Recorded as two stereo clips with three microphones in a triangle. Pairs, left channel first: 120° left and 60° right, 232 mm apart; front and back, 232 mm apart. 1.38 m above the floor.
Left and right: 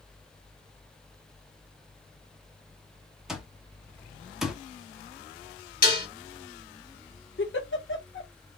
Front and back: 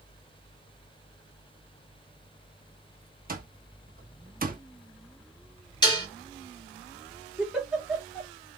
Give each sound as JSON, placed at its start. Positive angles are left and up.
{"t": 3.3, "sound": "an alarm clock", "azimuth_deg": -150, "distance_m": 1.0}
{"t": 5.8, "sound": "dishes clattering", "azimuth_deg": 70, "distance_m": 1.7}
{"t": 7.4, "sound": "a giggle", "azimuth_deg": 95, "distance_m": 1.4}